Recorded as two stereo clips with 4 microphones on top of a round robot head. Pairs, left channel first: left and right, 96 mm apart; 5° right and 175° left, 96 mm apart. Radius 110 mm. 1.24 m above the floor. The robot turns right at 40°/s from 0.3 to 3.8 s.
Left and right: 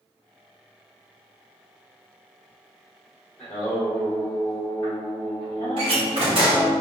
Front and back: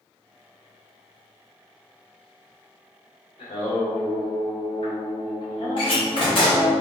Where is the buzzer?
No buzzer in this recording.